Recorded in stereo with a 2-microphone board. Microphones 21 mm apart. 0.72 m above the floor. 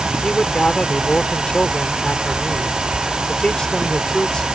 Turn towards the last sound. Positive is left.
turn(degrees=40)  # may be behind; listen again after turning